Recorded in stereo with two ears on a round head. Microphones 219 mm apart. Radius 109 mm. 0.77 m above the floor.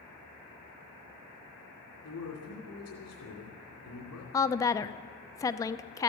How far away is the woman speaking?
About 0.5 m.